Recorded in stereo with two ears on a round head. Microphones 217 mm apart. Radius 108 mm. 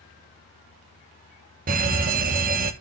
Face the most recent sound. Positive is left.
turn(degrees=-35)  # may be behind; listen again after turning